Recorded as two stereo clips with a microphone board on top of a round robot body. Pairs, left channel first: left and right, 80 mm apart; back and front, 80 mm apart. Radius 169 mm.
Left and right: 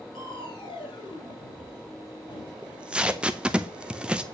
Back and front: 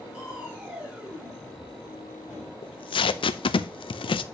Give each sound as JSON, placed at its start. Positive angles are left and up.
{"t": 0.1, "sound": "crushing", "azimuth_deg": 75, "distance_m": 4.0}
{"t": 2.6, "sound": "tape being pulled", "azimuth_deg": -165, "distance_m": 0.6}